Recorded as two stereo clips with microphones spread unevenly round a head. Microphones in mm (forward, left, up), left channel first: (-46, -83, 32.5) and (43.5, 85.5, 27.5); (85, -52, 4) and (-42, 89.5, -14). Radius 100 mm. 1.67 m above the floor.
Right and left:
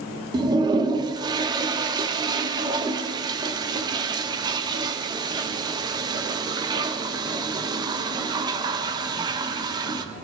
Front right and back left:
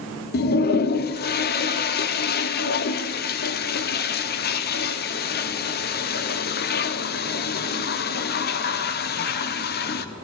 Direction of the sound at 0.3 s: 10° right.